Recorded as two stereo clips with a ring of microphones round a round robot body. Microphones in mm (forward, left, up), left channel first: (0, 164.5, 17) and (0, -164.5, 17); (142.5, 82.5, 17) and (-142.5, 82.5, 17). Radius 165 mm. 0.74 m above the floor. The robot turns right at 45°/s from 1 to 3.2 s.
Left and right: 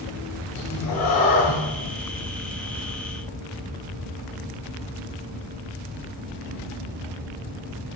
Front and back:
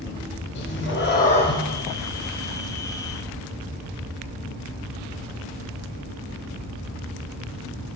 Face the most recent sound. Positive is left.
turn(degrees=150)